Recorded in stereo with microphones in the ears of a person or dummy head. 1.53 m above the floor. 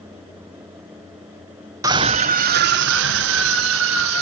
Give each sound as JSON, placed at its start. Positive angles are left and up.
{"t": 1.8, "sound": "a scream", "side_deg": -15, "distance_m": 0.8}